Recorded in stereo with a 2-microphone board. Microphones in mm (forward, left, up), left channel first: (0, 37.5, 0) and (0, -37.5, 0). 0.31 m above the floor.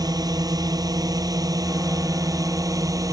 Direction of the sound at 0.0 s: 55° right (ahead or behind).